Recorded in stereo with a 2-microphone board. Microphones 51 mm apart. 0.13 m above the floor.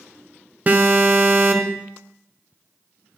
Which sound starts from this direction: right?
An alarm, at 0.7 s.